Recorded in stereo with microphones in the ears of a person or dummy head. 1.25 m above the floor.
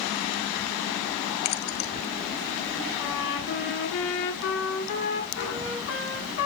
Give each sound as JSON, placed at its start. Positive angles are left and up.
{"t": 1.4, "sound": "keys jangling", "side_deg": 50, "distance_m": 1.3}
{"t": 3.0, "sound": "a trumpet", "side_deg": 70, "distance_m": 8.5}